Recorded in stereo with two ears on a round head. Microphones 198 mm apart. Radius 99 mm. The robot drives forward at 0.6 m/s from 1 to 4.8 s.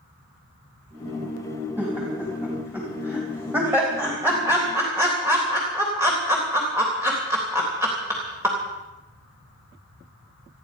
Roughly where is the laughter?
Centre.